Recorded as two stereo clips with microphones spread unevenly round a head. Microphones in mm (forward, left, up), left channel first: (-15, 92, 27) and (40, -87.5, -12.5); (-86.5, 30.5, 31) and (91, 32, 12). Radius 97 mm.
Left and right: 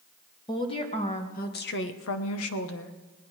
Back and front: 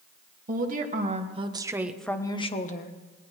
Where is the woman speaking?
40° left, 2.5 m; by 3.0 s 140° left, 1.5 m.